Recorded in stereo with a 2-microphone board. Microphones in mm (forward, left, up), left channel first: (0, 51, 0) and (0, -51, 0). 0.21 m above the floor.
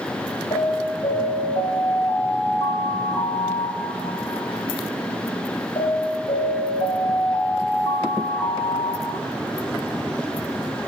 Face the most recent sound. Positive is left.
turn(degrees=80)